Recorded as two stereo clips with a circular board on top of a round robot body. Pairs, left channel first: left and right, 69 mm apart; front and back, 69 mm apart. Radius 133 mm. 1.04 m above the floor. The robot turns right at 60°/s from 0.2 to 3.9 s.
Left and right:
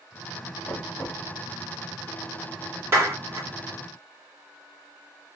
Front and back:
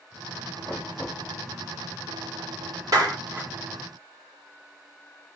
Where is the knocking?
60° left, 2 m; by 1.2 s 95° left, 2 m.